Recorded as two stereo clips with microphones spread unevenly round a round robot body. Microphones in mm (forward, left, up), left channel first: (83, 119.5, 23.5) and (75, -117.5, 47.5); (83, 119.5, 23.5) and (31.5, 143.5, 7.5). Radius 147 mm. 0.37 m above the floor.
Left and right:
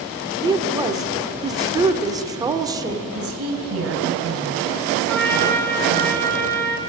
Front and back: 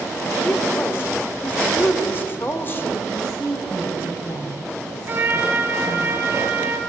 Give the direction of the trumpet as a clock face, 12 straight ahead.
7 o'clock.